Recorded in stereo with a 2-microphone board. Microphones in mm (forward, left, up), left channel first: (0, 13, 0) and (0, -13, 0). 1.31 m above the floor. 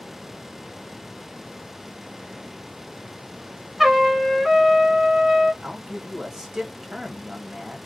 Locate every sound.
3.8 s a trumpet: centre (ahead or behind), 1.0 m
5.6 s a man speaking: 15° right (ahead or behind), 1.0 m